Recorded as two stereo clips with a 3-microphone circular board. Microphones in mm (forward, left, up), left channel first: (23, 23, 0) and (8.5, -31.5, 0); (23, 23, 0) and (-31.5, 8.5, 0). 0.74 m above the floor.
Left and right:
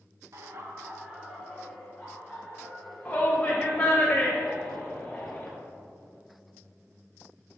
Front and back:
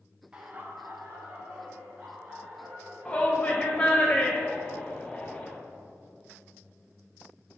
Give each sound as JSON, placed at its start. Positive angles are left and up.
{"t": 0.3, "sound": "laughter", "azimuth_deg": -95, "distance_m": 1.0}
{"t": 3.0, "sound": "a shout", "azimuth_deg": 60, "distance_m": 0.9}